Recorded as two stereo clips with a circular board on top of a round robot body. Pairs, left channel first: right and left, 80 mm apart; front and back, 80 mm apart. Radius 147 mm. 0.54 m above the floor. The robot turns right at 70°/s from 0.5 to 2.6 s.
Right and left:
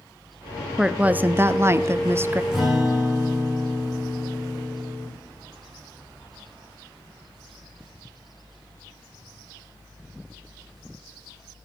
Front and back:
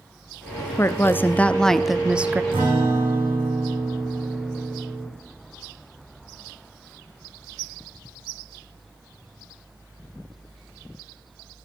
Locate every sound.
0.8 s a woman speaking: 15° left, 0.7 m; by 2.4 s 130° left, 0.7 m
2.5 s a guitar: 170° left, 7.5 m; by 5.1 s 175° left, 7.5 m